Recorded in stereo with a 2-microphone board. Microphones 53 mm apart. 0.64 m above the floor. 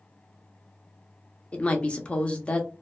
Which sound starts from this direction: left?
A woman speaking, at 1.5 s.